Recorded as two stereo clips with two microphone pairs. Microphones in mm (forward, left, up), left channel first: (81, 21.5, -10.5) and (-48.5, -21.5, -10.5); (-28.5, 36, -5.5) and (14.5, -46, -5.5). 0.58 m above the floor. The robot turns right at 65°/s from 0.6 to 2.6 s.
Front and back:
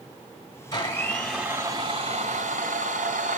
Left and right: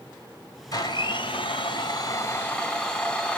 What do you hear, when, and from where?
0.7 s a blender: 70° left, 2 m; by 3.4 s 170° right, 2 m